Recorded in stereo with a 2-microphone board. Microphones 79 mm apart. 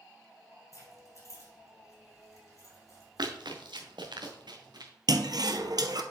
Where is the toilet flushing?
65° right (ahead or behind), 0.7 m.